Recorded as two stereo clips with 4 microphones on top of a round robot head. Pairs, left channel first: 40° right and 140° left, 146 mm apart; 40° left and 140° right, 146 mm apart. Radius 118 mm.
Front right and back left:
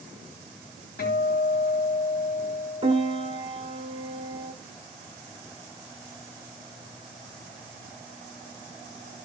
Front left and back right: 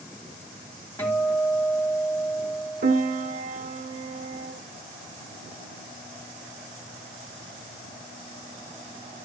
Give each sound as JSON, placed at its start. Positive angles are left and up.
{"t": 1.0, "sound": "a guitar", "azimuth_deg": -35, "distance_m": 3.5}
{"t": 2.8, "sound": "a piano", "azimuth_deg": -165, "distance_m": 1.2}